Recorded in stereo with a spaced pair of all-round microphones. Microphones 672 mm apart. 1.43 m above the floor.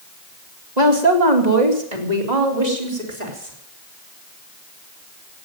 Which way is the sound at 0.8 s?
85° right.